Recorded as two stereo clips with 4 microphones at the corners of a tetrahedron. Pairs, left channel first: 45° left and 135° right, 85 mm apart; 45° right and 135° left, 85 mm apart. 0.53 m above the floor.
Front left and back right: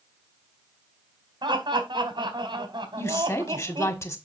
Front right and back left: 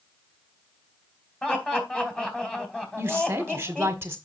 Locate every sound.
1.4 s laughter: 125° right, 2.5 m
3.0 s a woman speaking: 85° left, 1.5 m